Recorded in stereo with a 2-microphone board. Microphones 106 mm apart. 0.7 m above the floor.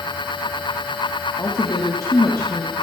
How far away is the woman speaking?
About 1.0 m.